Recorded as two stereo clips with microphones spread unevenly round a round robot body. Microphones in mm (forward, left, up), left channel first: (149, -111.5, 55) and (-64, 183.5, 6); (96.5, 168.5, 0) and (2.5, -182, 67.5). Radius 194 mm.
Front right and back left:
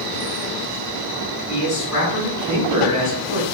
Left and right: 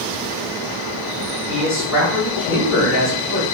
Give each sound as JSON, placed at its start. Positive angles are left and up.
{"t": 1.5, "sound": "a man speaking", "azimuth_deg": 10, "distance_m": 1.8}